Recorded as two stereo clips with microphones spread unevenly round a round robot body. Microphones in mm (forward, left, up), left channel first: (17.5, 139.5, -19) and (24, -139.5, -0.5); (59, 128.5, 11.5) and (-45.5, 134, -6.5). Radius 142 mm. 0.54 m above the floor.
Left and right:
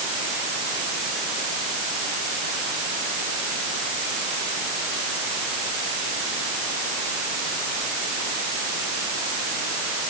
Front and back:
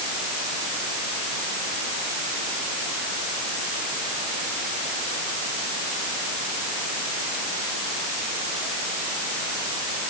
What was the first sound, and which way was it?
Only background noise.